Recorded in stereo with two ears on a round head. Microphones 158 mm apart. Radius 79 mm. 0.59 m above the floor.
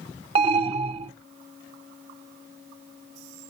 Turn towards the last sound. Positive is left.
turn(degrees=-35)  # may be behind; listen again after turning